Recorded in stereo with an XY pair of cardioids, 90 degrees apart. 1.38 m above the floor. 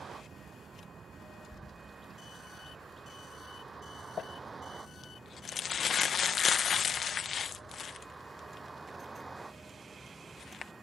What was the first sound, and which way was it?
A vehicle, 50° right.